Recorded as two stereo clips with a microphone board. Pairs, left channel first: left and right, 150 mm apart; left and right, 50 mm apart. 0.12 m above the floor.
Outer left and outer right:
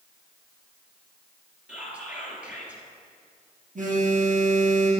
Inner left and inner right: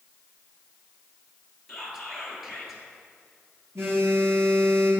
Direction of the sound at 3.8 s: 60° right (ahead or behind).